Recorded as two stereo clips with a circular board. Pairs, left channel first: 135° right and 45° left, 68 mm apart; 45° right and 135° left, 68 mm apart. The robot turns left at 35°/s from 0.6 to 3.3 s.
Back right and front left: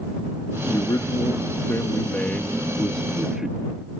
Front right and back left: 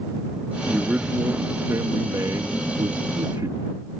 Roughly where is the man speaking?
Behind right.